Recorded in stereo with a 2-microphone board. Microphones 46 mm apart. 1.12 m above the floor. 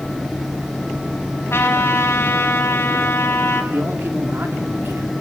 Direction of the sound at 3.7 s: 60° right (ahead or behind).